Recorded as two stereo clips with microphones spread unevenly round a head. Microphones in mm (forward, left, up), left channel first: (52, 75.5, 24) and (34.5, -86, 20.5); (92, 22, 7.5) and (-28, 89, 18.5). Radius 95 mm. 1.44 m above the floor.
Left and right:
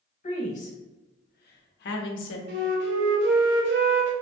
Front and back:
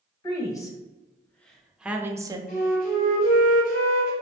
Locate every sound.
0.2 s a woman speaking: 35° left, 1.4 m; by 2.4 s 90° left, 0.7 m
2.5 s a flute: 80° right, 0.8 m